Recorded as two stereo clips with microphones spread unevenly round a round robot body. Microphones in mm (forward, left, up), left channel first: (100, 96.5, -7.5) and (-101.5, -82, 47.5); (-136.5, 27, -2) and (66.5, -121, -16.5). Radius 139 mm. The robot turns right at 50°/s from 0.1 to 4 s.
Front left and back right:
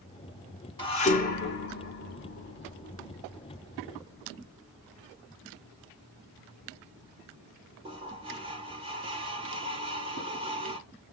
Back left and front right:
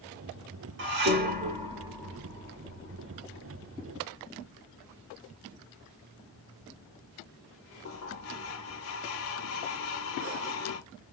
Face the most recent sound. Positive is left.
turn(degrees=145)